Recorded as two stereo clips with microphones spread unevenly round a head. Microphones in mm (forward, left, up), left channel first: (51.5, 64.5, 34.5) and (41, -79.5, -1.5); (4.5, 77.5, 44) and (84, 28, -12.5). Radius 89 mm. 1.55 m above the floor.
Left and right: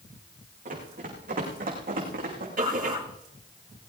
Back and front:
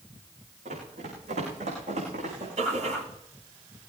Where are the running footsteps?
65° right, 7.5 m; by 2.5 s 70° right, 7 m.